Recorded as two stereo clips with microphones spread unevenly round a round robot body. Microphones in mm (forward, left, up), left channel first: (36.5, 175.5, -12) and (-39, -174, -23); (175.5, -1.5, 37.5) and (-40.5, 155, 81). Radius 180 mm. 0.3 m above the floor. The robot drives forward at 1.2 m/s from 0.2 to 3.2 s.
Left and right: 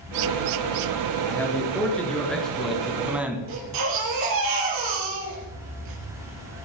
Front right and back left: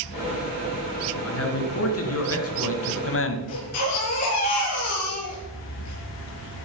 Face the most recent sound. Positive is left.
turn(degrees=-70)